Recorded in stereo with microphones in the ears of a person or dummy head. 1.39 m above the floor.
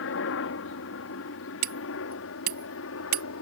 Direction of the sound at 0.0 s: 65° left (ahead or behind).